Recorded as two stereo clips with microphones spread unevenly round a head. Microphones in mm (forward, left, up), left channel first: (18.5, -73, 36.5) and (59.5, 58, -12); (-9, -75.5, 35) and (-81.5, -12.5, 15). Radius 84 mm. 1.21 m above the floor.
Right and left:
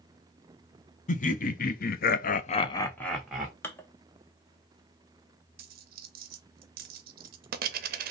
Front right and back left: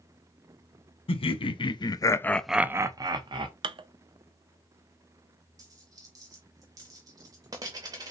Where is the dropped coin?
70° left, 0.6 m.